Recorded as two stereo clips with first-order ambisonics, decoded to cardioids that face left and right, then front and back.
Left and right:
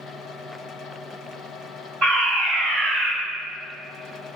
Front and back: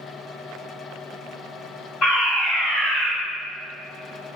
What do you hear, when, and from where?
2.0 s a fire alarm: 50° right, 1.8 m